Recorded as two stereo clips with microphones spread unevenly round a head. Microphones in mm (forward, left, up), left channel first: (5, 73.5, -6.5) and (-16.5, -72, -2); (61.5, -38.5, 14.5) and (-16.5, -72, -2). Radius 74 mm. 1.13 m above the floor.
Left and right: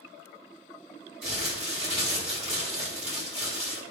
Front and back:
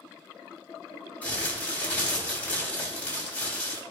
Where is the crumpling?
50° right, 5 m.